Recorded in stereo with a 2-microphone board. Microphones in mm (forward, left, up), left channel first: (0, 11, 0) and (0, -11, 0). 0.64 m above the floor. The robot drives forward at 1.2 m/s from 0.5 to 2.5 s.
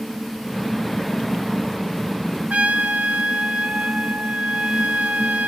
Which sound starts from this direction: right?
A trumpet, at 2.5 s.